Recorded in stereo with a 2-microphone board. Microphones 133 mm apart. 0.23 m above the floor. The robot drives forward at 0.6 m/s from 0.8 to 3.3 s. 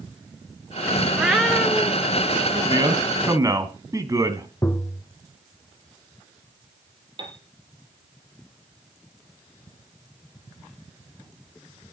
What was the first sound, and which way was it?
A cat meowing, 5° right (ahead or behind).